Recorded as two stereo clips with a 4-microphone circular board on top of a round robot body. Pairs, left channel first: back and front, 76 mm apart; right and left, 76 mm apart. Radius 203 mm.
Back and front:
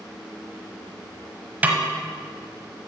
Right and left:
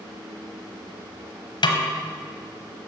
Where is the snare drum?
70° right, 1.1 m.